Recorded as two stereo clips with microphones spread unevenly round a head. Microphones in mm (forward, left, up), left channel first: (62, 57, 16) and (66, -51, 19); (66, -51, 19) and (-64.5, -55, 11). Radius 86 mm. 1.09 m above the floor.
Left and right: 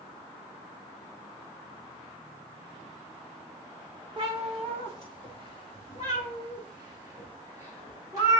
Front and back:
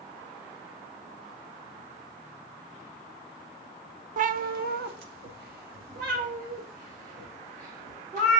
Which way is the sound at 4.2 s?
150° right.